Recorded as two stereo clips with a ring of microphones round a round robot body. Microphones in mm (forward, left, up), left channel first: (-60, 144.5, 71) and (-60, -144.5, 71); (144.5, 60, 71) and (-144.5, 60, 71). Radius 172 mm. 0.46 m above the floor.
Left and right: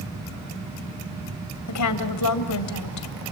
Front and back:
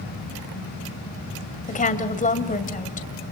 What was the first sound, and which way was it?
A woman speaking, 65° left.